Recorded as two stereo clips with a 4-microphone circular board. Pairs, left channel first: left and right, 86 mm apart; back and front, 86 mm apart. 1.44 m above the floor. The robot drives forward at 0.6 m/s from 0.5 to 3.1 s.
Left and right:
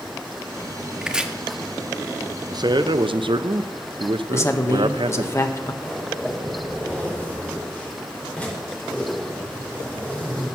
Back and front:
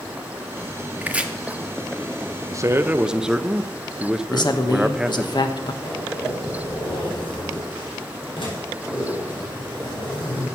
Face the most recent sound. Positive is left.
turn(degrees=165)